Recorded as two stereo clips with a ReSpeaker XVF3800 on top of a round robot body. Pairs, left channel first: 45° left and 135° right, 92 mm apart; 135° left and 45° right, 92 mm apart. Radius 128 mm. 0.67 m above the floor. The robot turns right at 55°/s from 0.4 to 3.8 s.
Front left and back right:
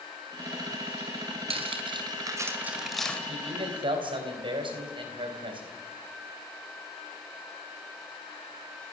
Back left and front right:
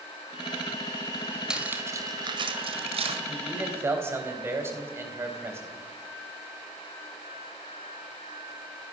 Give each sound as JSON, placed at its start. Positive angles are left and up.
{"t": 1.5, "sound": "cutlery clinking", "azimuth_deg": -125, "distance_m": 2.0}
{"t": 3.3, "sound": "a man speaking", "azimuth_deg": -135, "distance_m": 4.0}